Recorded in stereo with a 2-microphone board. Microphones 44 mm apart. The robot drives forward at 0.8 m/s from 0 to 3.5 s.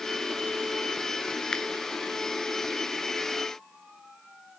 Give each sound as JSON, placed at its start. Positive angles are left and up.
{"t": 1.5, "sound": "a finger snap", "side_deg": 20, "distance_m": 1.2}